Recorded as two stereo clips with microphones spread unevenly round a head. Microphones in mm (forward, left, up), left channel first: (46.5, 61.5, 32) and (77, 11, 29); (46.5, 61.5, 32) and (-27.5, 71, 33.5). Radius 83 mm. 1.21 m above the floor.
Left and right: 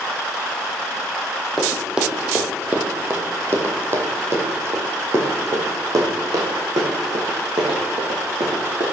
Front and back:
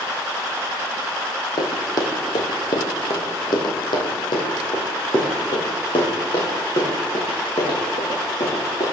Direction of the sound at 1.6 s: 25° left.